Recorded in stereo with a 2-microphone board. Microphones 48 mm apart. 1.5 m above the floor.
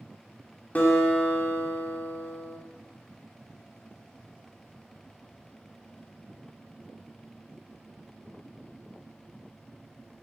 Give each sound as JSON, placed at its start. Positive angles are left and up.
{"t": 0.8, "sound": "a guitar", "side_deg": 30, "distance_m": 1.6}